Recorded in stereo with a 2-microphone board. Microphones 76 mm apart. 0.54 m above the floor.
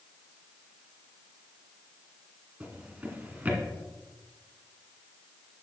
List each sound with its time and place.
2.6 s a drawer: 20° right (ahead or behind), 1.8 m